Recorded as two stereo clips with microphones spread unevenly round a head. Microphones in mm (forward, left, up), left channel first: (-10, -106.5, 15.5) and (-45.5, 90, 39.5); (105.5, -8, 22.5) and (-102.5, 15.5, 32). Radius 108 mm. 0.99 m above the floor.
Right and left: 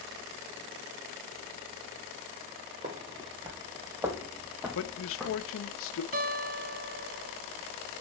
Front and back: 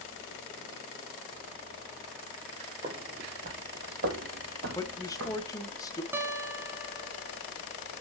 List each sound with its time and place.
2.8 s footsteps: 125° left, 1.3 m; by 5.5 s 170° right, 2 m
4.8 s a man speaking: 80° right, 0.7 m
6.1 s a guitar: 100° left, 0.9 m